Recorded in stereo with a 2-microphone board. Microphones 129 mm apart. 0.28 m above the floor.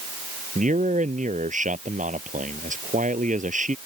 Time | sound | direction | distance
0.6 | a man speaking | 75° right (ahead or behind) | ?